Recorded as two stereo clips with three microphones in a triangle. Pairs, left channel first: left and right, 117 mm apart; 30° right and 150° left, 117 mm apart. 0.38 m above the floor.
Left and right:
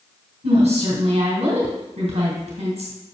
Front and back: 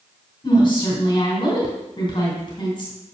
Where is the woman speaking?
75° right, 2.5 m.